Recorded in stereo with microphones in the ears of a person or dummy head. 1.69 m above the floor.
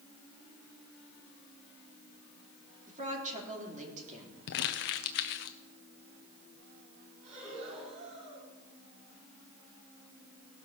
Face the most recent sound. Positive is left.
turn(degrees=-70)  # may be behind; listen again after turning